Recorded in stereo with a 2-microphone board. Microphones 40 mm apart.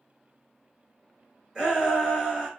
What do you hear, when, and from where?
1.6 s a shout: 10° right (ahead or behind), 1.2 m